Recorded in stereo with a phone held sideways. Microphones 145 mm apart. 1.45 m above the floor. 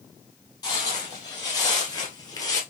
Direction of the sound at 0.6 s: 25° left (ahead or behind).